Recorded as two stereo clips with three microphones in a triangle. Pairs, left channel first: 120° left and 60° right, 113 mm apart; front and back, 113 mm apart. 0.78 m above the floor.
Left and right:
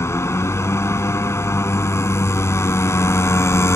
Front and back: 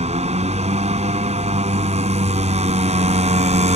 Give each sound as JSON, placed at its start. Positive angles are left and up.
{"t": 0.0, "sound": "a motorcycle", "azimuth_deg": -175}